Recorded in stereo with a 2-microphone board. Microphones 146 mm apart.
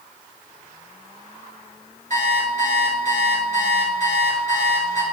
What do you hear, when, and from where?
2.1 s an alarm clock: 55° right (ahead or behind), 1.5 m